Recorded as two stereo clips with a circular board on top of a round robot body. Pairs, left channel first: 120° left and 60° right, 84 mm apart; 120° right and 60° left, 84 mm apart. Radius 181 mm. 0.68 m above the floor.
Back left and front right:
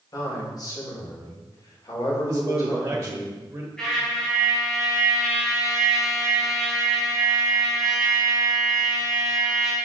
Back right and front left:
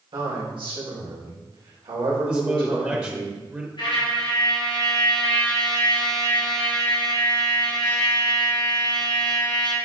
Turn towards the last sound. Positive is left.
turn(degrees=-155)